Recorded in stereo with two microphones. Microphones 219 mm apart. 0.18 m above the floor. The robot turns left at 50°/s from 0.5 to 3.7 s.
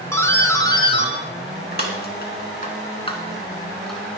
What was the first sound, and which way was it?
A doorbell, 15° left (ahead or behind).